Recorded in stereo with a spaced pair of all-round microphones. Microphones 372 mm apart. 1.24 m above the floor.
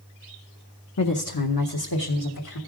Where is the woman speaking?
50° left (ahead or behind), 0.7 m; by 2.6 s 80° left, 1.7 m.